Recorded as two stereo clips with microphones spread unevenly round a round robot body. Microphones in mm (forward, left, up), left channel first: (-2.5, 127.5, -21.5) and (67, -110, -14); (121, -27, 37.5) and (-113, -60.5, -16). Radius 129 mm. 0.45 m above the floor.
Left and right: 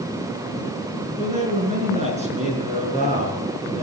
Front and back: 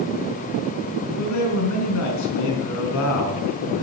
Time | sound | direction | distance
1.2 | a man speaking | 10° right | 4.5 m